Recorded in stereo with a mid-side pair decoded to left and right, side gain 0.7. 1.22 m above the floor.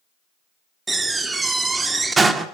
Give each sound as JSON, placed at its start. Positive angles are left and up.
{"t": 0.9, "sound": "a door slam", "azimuth_deg": -20, "distance_m": 1.9}